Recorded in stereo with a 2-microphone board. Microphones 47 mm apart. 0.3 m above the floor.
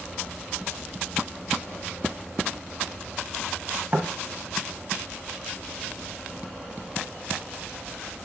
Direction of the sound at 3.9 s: 35° right (ahead or behind).